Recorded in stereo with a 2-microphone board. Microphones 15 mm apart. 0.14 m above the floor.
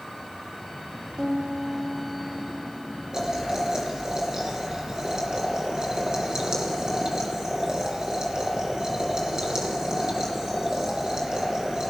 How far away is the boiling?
About 2.5 m.